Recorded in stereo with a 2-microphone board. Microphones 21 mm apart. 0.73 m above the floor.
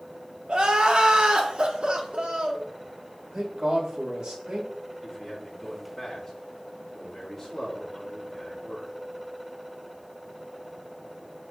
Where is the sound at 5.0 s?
10° left (ahead or behind), 2 m.